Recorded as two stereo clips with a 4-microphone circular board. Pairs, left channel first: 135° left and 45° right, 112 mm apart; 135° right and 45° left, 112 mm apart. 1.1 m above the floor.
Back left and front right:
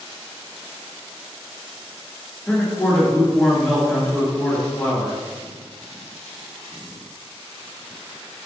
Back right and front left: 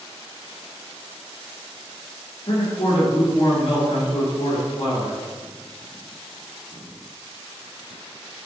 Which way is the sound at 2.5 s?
150° right.